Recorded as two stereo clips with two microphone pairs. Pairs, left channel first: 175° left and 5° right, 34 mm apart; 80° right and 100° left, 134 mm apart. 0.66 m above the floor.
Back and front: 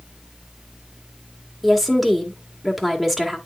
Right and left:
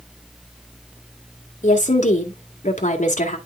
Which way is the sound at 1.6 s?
90° right.